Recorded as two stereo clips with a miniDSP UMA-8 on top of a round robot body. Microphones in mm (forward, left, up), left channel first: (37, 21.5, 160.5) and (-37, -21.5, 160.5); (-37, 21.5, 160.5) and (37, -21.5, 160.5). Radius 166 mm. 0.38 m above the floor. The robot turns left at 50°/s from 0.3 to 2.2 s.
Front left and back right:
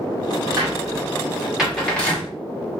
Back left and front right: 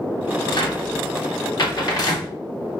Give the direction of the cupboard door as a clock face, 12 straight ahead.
6 o'clock.